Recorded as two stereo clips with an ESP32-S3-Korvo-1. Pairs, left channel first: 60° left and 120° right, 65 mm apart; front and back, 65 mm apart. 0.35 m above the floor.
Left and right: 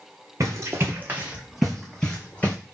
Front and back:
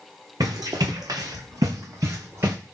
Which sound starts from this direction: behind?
Running footsteps, at 0.4 s.